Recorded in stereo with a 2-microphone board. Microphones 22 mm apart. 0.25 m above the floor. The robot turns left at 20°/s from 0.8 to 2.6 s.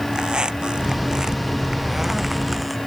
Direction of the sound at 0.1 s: 145° right.